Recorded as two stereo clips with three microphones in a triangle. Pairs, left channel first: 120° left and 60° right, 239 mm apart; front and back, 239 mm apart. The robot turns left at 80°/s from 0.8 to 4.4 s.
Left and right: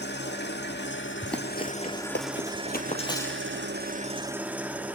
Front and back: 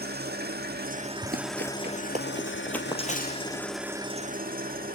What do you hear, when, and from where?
0.0 s an engine running: 145° left, 1.5 m; by 5.0 s 140° right, 1.5 m
1.2 s running footsteps: 145° right, 2 m; by 3.6 s 10° left, 3 m